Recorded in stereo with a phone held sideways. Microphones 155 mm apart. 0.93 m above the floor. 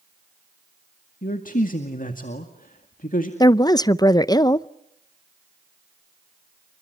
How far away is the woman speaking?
About 0.6 m.